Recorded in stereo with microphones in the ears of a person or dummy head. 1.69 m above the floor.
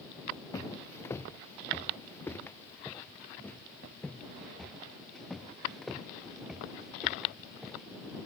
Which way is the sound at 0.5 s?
20° left (ahead or behind).